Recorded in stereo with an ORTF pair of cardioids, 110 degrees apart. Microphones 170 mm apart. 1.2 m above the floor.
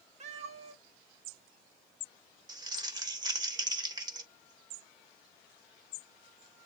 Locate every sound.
0.2 s a cat meowing: 40° right, 1.2 m
2.5 s crumpling: 25° right, 1.2 m